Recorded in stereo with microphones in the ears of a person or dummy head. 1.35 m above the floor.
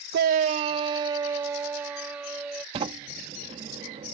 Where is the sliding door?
30° right (ahead or behind).